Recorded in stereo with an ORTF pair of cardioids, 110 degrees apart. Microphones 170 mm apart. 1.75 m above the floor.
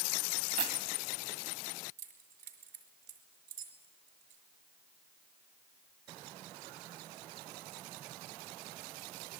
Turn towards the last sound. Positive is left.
turn(degrees=-60)